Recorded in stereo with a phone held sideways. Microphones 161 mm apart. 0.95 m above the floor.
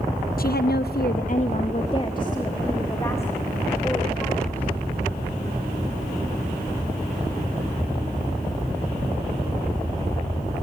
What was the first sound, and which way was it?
A woman speaking, 60° left (ahead or behind).